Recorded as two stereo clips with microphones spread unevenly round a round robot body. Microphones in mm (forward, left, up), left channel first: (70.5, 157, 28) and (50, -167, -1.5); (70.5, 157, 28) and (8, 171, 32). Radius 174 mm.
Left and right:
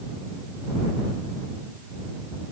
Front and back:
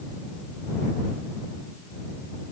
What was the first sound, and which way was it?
Only background noise.